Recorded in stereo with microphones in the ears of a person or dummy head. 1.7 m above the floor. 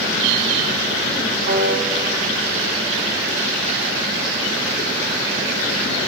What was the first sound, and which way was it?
A piano, 70° right (ahead or behind).